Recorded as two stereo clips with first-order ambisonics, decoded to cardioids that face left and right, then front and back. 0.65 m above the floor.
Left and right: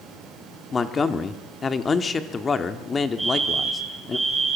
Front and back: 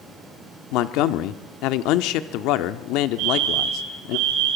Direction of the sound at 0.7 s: 20° left.